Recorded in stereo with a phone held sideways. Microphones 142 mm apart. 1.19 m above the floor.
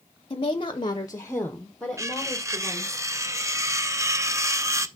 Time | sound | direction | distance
0.3 | a woman speaking | 35° left (ahead or behind) | 0.7 m
2.0 | cutlery clinking | 20° right (ahead or behind) | 0.5 m